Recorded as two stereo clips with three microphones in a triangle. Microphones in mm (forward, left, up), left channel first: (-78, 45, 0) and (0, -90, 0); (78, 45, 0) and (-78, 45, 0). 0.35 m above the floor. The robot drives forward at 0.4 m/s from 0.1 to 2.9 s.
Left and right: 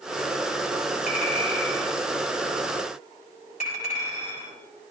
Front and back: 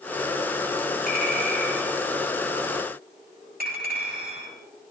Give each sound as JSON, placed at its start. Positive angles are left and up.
{"t": 1.1, "sound": "a clink", "azimuth_deg": 160, "distance_m": 7.5}